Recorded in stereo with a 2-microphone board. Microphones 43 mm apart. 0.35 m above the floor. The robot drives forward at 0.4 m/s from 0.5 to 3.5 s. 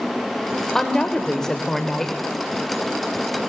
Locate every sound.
0.8 s a woman speaking: 10° left (ahead or behind), 0.9 m; by 2.1 s 15° left (ahead or behind), 0.8 m